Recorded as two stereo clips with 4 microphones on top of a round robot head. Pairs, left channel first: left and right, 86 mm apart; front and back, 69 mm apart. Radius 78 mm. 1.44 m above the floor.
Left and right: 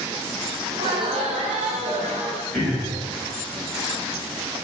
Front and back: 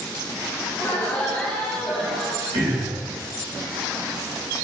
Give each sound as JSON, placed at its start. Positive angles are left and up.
{"t": 0.7, "sound": "laughter", "azimuth_deg": -60, "distance_m": 0.9}
{"t": 2.5, "sound": "throat clearing", "azimuth_deg": 170, "distance_m": 1.5}